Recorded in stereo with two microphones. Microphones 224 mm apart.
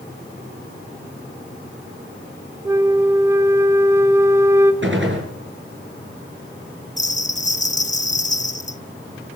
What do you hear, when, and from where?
2.6 s a flute: 10° right (ahead or behind), 1.7 m
4.8 s a gunshot: 60° right (ahead or behind), 6 m
7.0 s a bell: 35° left (ahead or behind), 0.9 m